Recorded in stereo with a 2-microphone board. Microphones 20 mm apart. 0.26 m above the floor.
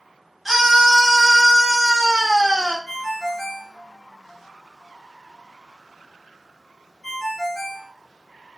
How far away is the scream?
About 1.1 m.